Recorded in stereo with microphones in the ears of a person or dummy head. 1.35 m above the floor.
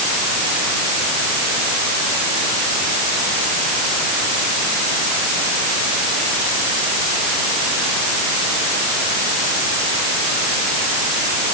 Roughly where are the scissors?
I don't hear scissors.